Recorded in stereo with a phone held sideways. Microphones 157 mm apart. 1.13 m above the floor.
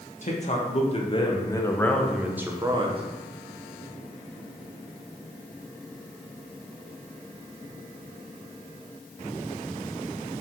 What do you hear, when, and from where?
0.2 s a man speaking: 50° left (ahead or behind), 1.5 m; by 3.0 s 35° right (ahead or behind), 0.9 m